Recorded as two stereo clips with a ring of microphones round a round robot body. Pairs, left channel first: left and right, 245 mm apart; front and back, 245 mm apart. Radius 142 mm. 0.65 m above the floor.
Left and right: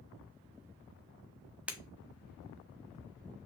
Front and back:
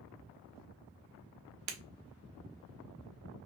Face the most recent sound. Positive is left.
turn(degrees=-175)